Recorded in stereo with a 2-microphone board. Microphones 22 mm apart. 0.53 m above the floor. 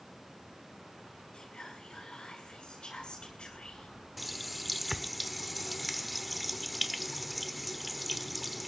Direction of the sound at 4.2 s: 5° left (ahead or behind).